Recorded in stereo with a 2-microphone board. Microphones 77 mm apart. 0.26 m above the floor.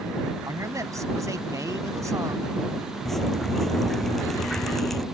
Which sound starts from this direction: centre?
Dripping, at 3.0 s.